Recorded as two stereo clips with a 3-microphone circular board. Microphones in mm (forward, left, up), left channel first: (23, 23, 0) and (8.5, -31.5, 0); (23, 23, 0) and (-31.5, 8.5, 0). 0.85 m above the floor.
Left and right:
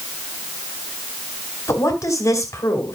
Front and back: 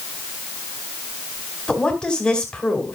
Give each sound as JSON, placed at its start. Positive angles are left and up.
{"t": 1.7, "sound": "a woman speaking", "azimuth_deg": 90, "distance_m": 3.0}